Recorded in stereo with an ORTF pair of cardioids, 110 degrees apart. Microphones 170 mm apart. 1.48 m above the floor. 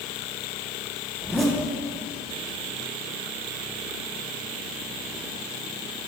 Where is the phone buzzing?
I don't hear a phone buzzing.